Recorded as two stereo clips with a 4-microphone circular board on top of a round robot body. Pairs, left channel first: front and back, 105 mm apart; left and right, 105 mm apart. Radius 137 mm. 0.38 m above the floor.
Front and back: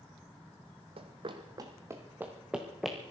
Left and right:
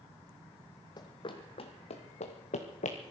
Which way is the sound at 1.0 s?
145° left.